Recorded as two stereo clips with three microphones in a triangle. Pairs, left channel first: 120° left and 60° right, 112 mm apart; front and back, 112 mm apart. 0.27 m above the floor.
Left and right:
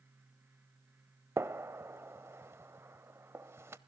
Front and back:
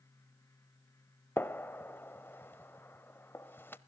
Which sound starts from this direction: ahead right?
A gunshot, at 1.4 s.